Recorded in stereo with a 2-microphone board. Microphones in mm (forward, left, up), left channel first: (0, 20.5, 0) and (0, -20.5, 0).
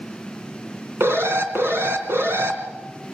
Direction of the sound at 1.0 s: 80° right.